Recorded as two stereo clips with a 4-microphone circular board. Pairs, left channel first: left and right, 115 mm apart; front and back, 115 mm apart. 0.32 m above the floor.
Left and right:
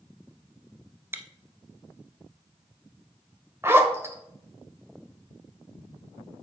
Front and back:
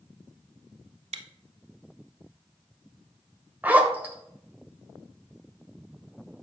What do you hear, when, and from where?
1.1 s chewing: 160° right, 0.6 m
3.6 s a zipper: 125° right, 0.9 m